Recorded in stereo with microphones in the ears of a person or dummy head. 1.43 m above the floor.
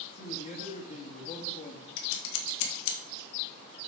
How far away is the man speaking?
About 1.8 m.